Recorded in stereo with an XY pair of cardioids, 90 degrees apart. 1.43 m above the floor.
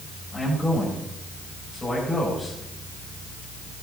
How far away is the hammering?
No hammering in this recording.